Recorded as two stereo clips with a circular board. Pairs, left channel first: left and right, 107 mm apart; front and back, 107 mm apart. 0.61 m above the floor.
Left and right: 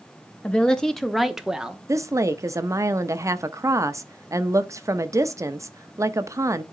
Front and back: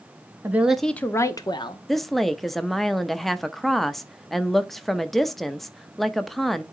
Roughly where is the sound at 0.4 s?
Behind left.